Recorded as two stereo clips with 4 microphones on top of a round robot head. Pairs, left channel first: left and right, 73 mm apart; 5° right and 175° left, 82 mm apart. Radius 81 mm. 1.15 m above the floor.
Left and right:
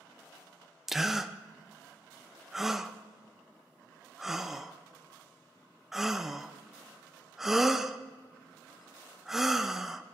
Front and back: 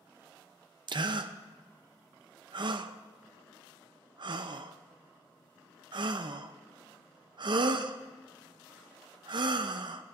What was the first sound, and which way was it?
A gasp, 175° right.